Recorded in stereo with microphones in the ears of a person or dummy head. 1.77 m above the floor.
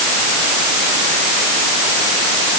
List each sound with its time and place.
Only background noise.